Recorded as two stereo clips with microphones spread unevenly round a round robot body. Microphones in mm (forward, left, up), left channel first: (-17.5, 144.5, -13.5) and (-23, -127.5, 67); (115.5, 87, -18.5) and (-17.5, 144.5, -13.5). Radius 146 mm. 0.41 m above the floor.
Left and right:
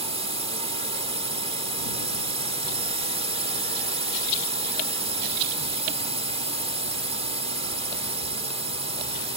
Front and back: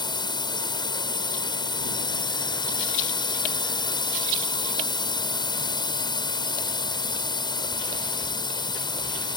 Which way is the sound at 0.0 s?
10° right.